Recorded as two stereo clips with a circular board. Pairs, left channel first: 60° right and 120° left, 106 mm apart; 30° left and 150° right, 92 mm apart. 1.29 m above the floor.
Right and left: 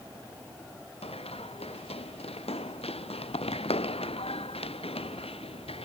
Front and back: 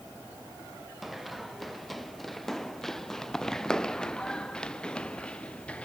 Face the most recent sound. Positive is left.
turn(degrees=-45)